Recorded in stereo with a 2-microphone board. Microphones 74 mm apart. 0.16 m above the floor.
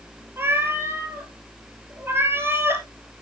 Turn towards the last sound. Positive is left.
turn(degrees=-30)  # may be behind; listen again after turning